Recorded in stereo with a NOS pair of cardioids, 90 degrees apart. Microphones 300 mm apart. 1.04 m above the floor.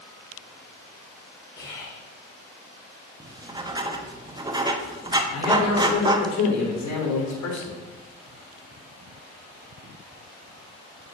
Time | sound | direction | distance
1.6 | whispering | 45° left | 3.5 m
3.2 | writing | 15° right | 1.0 m
5.3 | a man speaking | 65° left | 3.5 m